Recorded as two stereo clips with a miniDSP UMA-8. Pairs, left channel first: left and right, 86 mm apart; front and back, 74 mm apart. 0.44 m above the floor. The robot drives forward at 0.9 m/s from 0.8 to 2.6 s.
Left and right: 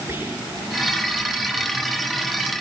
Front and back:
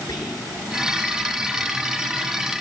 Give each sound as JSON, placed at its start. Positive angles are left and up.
{"t": 0.1, "sound": "whispering", "azimuth_deg": -25, "distance_m": 7.5}